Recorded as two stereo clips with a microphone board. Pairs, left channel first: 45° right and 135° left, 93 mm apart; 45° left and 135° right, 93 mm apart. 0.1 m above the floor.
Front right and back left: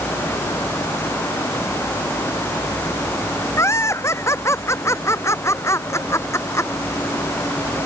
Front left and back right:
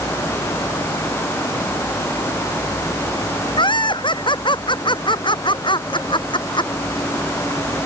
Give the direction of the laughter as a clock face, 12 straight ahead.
12 o'clock.